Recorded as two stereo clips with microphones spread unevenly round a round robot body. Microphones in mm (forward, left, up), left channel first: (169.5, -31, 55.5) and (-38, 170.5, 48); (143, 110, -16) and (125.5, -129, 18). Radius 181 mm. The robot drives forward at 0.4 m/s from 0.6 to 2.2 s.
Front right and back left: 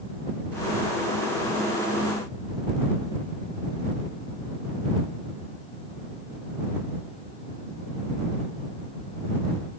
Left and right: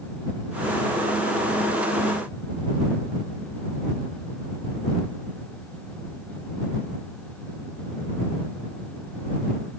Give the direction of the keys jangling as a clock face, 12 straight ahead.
No keys jangling in this recording.